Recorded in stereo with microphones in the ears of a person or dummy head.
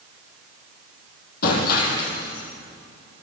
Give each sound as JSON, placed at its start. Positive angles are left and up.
{"t": 1.4, "sound": "breaking glass", "side_deg": 60, "distance_m": 7.0}